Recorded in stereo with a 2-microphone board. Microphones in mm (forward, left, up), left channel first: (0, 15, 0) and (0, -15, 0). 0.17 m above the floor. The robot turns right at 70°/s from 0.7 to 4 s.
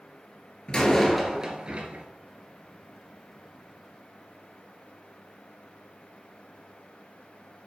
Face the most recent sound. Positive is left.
turn(degrees=20)